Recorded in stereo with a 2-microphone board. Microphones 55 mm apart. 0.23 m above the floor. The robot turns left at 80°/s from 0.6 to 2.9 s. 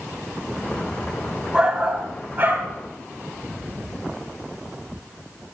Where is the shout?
25° right, 1.8 m; by 2.7 s 115° right, 1.8 m.